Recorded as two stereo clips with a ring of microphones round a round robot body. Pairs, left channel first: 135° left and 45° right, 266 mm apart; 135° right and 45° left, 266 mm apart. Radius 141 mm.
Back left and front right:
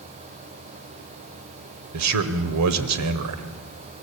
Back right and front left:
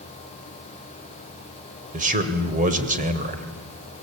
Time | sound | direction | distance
1.9 | a man speaking | 15° right | 2 m